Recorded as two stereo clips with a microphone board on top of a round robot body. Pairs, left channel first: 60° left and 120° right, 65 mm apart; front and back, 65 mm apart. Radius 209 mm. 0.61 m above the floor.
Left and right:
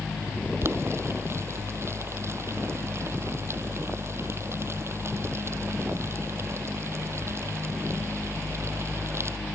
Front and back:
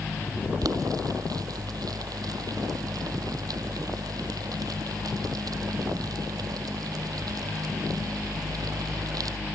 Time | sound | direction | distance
0.6 | boiling | 165° right | ?